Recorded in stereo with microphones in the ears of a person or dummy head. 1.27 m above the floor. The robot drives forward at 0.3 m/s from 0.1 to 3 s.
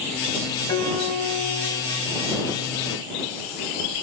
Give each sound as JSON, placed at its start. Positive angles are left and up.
{"t": 0.7, "sound": "a piano", "side_deg": 20, "distance_m": 4.0}